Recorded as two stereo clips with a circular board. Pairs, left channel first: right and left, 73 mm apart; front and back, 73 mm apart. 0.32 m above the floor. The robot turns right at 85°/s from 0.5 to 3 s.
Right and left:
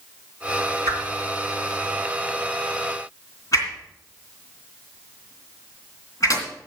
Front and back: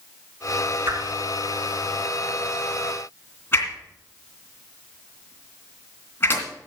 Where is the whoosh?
120° left, 2.5 m; by 6.5 s 55° right, 2.5 m.